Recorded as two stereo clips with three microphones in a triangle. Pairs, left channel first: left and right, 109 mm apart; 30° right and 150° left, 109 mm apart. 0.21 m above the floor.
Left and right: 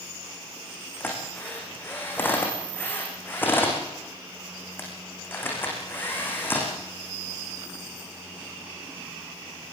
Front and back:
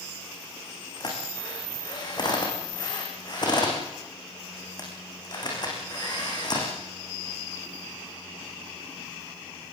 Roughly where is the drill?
Ahead.